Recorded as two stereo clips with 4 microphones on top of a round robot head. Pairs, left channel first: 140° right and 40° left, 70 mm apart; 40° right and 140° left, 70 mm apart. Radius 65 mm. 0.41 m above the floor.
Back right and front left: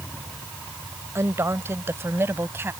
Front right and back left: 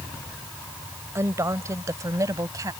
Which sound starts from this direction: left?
A woman speaking, at 1.1 s.